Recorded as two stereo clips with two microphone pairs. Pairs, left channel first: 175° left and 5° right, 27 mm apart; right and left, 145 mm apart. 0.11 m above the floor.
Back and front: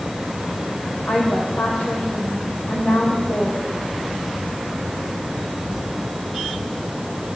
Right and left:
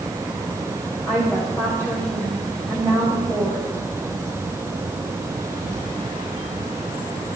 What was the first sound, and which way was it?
A woman speaking, 165° right.